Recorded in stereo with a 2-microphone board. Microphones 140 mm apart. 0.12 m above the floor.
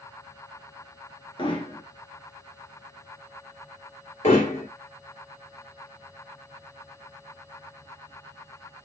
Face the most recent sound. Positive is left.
turn(degrees=55)  # may be behind; listen again after turning